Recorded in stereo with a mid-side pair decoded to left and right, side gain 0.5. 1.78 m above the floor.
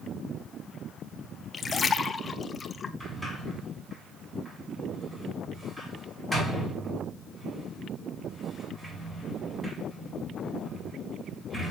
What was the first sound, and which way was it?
A splash, 30° left.